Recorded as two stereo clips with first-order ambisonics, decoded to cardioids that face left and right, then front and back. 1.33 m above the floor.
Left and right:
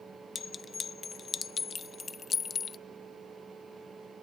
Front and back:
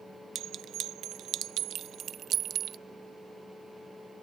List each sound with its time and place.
0.3 s a clink: 150° left